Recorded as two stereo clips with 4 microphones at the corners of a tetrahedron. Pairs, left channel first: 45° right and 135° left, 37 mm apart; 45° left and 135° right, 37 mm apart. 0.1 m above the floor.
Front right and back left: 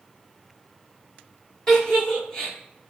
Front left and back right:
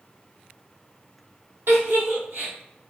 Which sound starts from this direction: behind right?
A giggle, at 1.7 s.